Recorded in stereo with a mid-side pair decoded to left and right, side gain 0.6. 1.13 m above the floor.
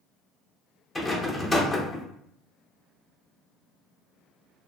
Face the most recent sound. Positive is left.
turn(degrees=15)